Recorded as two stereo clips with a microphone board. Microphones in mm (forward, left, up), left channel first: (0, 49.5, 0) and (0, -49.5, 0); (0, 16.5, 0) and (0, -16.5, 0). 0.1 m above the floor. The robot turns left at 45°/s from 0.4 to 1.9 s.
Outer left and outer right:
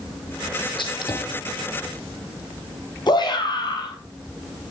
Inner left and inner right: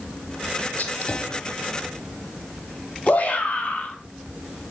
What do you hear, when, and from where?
0.8 s a gunshot: 60° left (ahead or behind), 3 m; by 1.8 s 20° left (ahead or behind), 3 m
3.1 s a shout: 50° left (ahead or behind), 3.5 m